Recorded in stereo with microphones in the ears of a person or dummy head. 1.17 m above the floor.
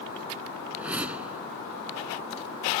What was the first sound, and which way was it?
A whoosh, 10° right (ahead or behind).